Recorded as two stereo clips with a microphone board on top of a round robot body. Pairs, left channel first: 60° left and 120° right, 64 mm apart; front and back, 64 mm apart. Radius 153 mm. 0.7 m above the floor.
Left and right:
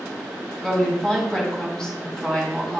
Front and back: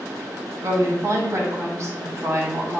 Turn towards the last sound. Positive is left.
turn(degrees=140)